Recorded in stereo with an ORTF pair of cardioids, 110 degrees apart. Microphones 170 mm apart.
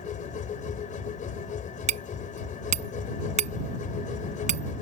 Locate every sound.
0.0 s a machine running: 50° left
1.9 s hammering: 45° right